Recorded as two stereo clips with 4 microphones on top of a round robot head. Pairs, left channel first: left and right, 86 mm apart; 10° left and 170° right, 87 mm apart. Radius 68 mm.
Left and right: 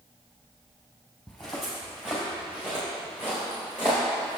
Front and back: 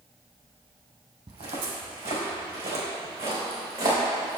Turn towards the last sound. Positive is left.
turn(degrees=-155)